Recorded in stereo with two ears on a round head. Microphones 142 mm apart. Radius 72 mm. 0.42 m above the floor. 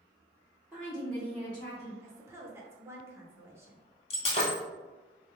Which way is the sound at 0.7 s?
10° right (ahead or behind).